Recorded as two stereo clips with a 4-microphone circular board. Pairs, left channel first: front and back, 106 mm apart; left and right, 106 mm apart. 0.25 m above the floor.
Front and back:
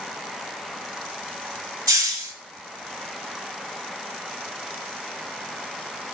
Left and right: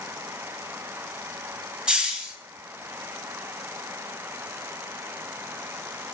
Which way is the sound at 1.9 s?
165° right.